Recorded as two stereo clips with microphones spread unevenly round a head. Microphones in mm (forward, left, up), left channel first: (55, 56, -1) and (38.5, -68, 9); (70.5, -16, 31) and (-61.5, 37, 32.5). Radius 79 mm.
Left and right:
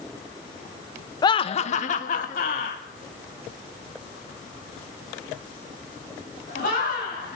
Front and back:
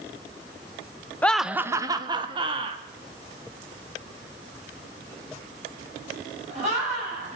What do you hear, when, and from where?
1.2 s laughter: 50° left, 0.8 m; by 7.4 s 115° left, 8 m